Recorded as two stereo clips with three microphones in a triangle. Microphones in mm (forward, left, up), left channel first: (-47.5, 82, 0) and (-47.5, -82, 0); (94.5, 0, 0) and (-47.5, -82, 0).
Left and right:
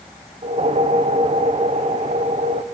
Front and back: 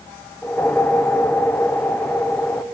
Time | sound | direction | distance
0.4 | a whoosh | 50° right | 0.7 m